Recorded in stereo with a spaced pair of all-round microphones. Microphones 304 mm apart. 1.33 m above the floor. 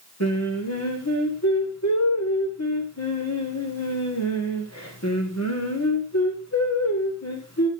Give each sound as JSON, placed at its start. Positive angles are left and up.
{"t": 0.2, "sound": "singing", "side_deg": 50, "distance_m": 3.5}